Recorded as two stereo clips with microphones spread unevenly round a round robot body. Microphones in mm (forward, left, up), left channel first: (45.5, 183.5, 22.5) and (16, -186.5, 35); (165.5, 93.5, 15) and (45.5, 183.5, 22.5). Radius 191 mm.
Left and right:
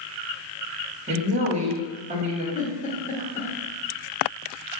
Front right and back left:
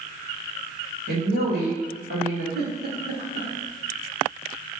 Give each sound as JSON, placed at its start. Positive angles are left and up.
{"t": 1.1, "sound": "a woman speaking", "azimuth_deg": -170, "distance_m": 1.8}
{"t": 2.5, "sound": "a giggle", "azimuth_deg": 160, "distance_m": 1.4}